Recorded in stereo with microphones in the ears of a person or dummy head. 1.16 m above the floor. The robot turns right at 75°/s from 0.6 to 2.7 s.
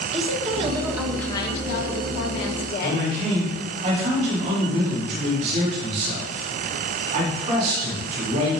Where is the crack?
I don't hear a crack.